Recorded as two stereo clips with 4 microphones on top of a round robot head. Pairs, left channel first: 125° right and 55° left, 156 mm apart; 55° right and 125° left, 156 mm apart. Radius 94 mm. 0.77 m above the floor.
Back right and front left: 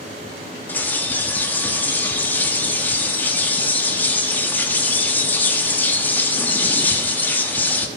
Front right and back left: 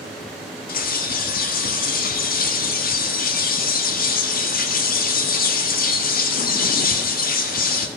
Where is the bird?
45° right, 1.8 m.